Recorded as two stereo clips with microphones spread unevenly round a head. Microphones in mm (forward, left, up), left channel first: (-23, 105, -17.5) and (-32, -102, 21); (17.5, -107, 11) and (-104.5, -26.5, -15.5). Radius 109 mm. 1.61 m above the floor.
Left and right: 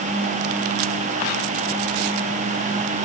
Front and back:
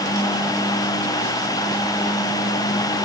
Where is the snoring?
No snoring in this recording.